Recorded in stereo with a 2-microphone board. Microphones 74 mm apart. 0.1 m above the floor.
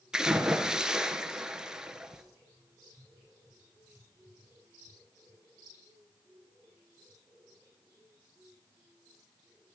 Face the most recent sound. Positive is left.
turn(degrees=-10)  # may be behind; listen again after turning